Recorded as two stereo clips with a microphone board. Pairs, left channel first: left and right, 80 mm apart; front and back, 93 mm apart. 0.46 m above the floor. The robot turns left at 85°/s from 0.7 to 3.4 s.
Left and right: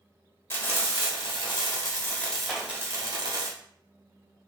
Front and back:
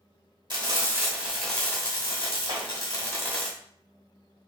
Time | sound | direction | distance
0.5 | frying | 150° left | 1.1 m
2.5 | a clap | 160° right | 1.4 m